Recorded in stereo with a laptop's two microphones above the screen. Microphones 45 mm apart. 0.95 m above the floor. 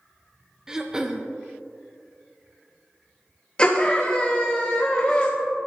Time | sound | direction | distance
0.7 | throat clearing | 15° right (ahead or behind) | 0.6 m
3.6 | a scream | 20° left (ahead or behind) | 1.0 m